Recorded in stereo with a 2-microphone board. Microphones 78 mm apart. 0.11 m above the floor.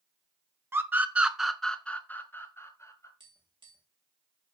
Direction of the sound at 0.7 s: 30° right (ahead or behind).